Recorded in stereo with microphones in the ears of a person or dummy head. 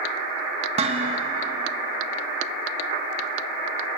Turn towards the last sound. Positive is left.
turn(degrees=-35)  # may be behind; listen again after turning